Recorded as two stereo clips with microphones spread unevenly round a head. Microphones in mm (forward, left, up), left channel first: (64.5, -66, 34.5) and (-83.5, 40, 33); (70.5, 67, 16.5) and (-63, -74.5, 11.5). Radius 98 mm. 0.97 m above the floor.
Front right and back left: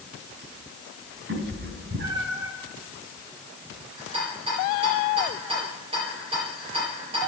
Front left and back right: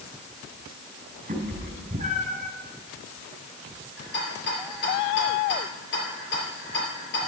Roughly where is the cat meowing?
Behind.